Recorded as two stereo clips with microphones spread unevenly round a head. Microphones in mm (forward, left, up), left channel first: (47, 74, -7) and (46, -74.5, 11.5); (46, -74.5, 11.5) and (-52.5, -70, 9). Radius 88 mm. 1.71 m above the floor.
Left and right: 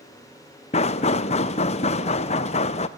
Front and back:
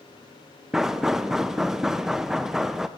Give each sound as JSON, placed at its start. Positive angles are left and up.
{"t": 0.7, "sound": "knocking", "azimuth_deg": 95, "distance_m": 0.6}